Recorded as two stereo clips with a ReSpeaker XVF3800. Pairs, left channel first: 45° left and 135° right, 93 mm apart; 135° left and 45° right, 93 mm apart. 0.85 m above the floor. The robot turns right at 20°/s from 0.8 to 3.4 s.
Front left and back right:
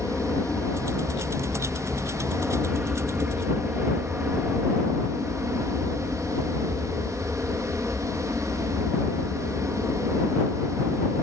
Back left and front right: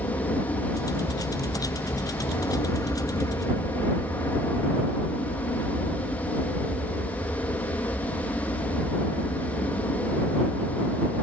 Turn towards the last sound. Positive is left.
turn(degrees=165)